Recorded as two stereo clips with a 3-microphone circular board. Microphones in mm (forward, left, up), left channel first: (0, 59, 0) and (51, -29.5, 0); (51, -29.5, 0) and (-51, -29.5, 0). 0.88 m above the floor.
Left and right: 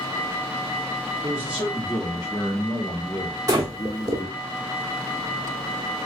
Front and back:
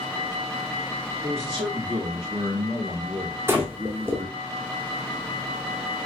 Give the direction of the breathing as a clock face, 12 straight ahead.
4 o'clock.